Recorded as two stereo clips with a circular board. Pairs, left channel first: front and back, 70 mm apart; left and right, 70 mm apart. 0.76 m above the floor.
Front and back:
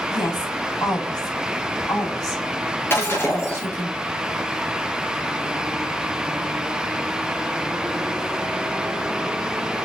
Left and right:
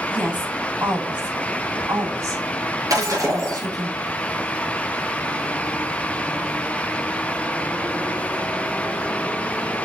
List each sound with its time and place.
0.1 s a woman speaking: 20° right, 5 m; by 3.9 s 55° right, 4.5 m
2.9 s breaking glass: 55° right, 4.5 m